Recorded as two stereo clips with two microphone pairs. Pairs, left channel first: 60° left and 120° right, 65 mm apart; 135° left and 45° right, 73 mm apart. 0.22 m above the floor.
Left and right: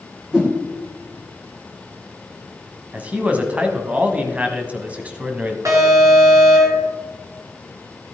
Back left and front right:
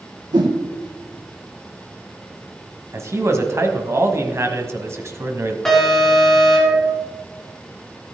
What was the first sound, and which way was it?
A whoosh, 40° right.